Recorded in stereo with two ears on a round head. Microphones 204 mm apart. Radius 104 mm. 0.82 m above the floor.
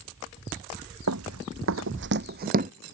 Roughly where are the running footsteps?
Right.